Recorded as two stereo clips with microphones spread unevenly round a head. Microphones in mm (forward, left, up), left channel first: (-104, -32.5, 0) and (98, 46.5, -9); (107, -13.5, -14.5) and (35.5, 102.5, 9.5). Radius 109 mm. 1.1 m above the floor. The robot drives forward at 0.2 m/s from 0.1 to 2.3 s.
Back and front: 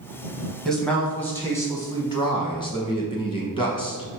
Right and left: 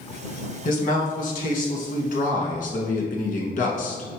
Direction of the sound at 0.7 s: 70° right.